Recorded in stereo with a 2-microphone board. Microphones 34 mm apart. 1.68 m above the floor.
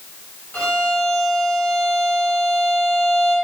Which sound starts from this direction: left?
A violin, at 0.5 s.